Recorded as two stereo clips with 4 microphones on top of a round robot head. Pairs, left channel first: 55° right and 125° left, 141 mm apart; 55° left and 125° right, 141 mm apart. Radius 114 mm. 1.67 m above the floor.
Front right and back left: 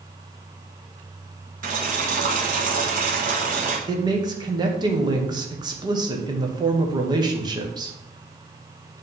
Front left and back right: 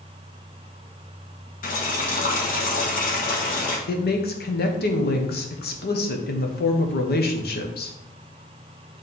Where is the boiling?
90° left, 1.5 m.